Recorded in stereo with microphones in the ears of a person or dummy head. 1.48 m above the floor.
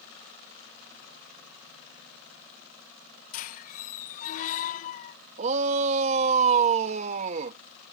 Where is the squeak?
40° left (ahead or behind).